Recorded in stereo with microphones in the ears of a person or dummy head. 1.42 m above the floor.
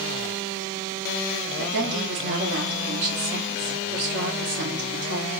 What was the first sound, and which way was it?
A woman speaking, 60° right (ahead or behind).